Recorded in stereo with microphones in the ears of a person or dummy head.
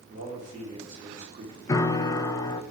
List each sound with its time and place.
0.1 s a man speaking: 45° right (ahead or behind), 4 m
1.7 s a piano: 20° left (ahead or behind), 0.7 m